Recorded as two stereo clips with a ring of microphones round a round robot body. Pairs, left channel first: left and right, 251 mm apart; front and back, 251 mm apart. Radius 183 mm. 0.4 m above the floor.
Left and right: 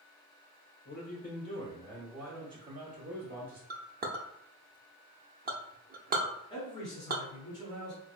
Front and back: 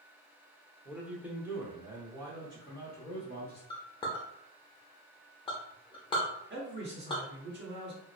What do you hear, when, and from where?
0.8 s a man speaking: 95° left, 1.1 m; by 3.6 s 110° right, 1.3 m
3.7 s a clink: 60° right, 0.5 m
6.5 s a man speaking: 165° left, 1.0 m